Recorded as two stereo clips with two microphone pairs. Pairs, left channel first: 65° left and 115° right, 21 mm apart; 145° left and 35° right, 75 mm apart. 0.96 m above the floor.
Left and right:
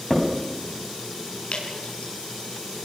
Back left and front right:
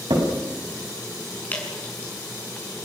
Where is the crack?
20° right, 5 m.